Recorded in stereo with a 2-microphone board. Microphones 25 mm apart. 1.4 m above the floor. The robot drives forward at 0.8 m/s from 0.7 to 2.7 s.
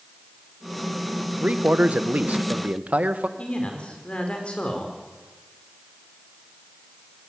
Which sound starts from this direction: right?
A man speaking, at 1.4 s.